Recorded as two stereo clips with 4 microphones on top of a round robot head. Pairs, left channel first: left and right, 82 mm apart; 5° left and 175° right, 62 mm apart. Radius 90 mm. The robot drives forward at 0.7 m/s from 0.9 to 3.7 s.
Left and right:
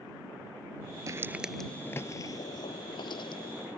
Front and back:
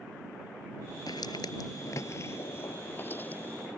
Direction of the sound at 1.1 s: 45° right.